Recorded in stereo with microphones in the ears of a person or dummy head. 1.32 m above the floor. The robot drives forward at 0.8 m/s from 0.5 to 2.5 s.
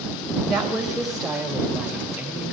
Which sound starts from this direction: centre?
A woman speaking, at 0.5 s.